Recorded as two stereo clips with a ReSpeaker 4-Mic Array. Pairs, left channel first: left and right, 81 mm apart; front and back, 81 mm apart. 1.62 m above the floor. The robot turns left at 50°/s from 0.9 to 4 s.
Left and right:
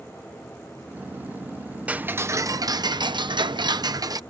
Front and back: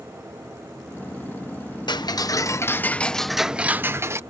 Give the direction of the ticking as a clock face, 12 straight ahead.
1 o'clock.